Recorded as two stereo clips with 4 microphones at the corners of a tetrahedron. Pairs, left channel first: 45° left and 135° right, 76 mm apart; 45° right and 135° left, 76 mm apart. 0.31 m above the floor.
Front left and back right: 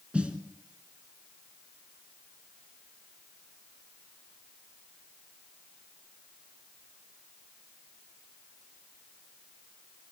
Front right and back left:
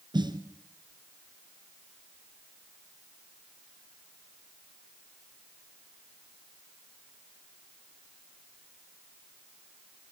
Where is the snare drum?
145° left, 1.8 m.